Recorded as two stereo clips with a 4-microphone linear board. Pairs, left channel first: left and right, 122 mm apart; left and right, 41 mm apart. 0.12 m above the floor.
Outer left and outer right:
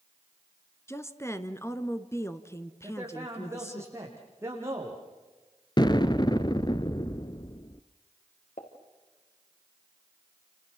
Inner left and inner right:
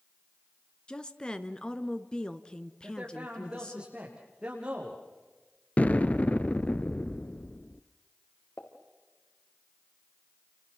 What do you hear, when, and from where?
0.9 s a woman speaking: 20° left (ahead or behind), 1.4 m
2.8 s a man speaking: 20° right (ahead or behind), 7.5 m
5.8 s an explosion: 35° left (ahead or behind), 0.9 m
8.6 s a pop: 80° left, 4.5 m